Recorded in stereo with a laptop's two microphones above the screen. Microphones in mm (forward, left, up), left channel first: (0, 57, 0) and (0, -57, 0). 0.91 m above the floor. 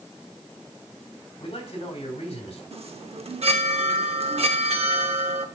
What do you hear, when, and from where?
1.4 s a man speaking: 55° left (ahead or behind), 3.5 m
2.7 s a chime: 60° right (ahead or behind), 0.8 m